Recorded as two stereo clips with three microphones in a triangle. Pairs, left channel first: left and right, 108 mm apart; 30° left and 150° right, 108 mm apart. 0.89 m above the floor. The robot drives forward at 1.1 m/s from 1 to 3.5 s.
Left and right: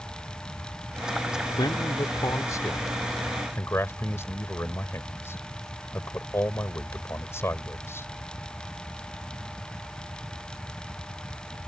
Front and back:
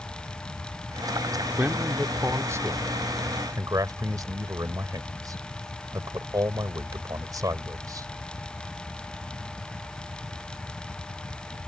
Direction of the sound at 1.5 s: 135° left.